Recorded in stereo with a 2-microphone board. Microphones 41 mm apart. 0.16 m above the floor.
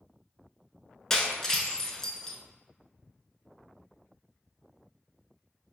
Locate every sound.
1.1 s breaking glass: 15° left (ahead or behind), 0.5 m